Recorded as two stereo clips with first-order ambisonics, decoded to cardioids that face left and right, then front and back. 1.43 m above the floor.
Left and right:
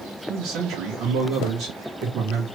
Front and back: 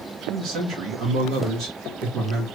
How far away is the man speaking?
About 1.8 m.